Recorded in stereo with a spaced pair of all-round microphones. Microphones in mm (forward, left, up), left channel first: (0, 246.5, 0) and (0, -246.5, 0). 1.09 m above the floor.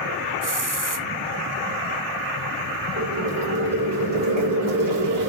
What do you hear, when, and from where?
0.4 s a hiss: 40° right (ahead or behind), 0.7 m
3.0 s boiling: 40° right (ahead or behind), 2.5 m